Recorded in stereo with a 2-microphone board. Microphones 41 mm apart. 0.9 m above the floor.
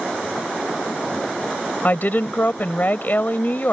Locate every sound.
1.8 s a woman speaking: 50° left (ahead or behind)